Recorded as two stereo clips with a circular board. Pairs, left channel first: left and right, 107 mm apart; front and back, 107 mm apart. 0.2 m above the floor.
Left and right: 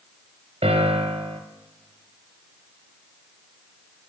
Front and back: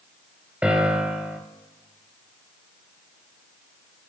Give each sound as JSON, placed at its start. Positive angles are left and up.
{"t": 0.6, "sound": "a piano", "azimuth_deg": -105, "distance_m": 0.8}